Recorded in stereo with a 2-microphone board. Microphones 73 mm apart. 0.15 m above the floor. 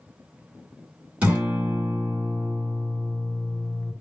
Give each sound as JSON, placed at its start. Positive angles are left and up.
{"t": 1.2, "sound": "a guitar", "side_deg": -20, "distance_m": 1.4}